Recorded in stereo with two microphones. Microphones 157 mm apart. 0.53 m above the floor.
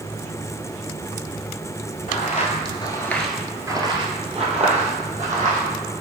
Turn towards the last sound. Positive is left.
turn(degrees=-55)  # may be behind; listen again after turning